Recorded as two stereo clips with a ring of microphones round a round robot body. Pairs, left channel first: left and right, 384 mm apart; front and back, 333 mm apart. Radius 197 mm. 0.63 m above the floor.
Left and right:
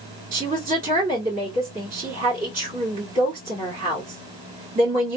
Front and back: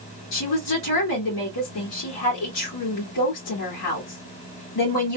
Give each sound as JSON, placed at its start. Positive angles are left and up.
{"t": 0.3, "sound": "a woman speaking", "azimuth_deg": -25, "distance_m": 2.0}